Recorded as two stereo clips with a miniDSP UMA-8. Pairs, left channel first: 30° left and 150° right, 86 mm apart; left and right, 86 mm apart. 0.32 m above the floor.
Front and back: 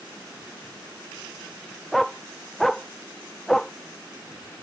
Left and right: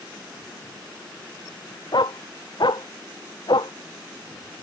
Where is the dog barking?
120° left; by 3.7 s 115° left.